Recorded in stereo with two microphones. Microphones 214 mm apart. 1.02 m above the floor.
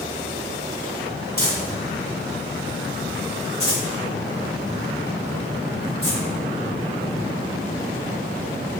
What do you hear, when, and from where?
1.4 s crumpling: 50° right (ahead or behind), 1.7 m